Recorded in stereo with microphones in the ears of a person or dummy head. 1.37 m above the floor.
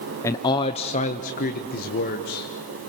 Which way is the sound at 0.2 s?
15° left (ahead or behind).